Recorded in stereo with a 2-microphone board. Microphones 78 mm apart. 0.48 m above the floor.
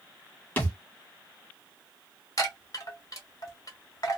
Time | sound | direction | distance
0.6 | a thud | 25° left (ahead or behind) | 1.0 m
2.4 | a chime | 50° left (ahead or behind) | 1.2 m